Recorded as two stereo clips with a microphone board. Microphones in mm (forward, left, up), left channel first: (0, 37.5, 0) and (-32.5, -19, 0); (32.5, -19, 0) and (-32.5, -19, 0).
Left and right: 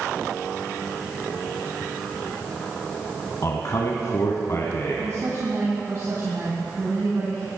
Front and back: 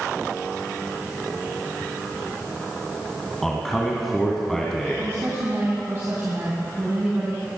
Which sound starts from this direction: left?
A man speaking, at 3.4 s.